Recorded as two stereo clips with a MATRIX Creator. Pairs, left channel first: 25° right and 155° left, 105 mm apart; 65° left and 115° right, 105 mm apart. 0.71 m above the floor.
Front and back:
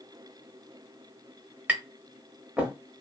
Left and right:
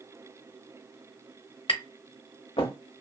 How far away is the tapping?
About 0.7 m.